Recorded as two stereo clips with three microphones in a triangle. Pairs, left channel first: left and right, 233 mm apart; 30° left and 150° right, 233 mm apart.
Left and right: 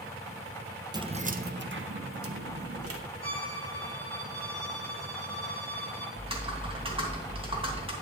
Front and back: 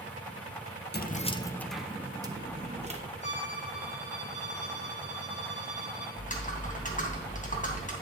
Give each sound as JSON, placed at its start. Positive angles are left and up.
{"t": 0.9, "sound": "keys jangling", "azimuth_deg": -20, "distance_m": 0.7}
{"t": 3.2, "sound": "a violin", "azimuth_deg": -15, "distance_m": 4.0}
{"t": 6.2, "sound": "typing on a keyboard", "azimuth_deg": -25, "distance_m": 2.5}